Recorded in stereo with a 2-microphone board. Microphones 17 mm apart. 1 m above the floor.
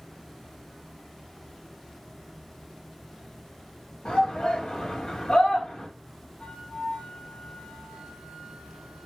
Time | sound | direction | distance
4.0 | a shout | 60° left (ahead or behind) | 3 m
6.4 | a flute | 65° left (ahead or behind) | 5.5 m